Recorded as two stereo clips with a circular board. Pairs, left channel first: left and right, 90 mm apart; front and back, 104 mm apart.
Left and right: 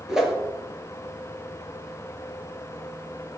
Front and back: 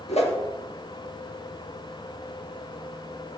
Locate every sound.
0.1 s a whoosh: 5° right, 1.6 m